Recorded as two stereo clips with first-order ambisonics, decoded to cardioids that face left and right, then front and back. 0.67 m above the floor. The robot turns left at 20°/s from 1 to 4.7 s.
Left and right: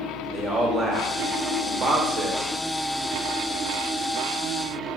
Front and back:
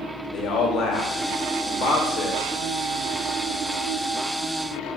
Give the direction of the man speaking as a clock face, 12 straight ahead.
1 o'clock.